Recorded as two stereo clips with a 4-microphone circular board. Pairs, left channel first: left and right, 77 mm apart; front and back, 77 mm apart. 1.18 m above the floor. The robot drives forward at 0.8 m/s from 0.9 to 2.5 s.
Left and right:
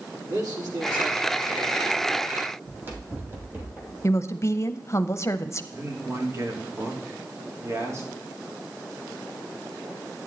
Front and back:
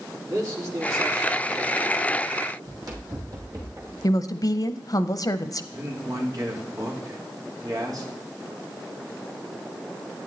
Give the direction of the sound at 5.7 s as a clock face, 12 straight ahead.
5 o'clock.